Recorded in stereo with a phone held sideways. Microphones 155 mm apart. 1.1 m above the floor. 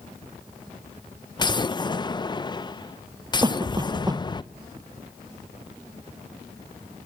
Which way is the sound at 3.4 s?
25° right (ahead or behind).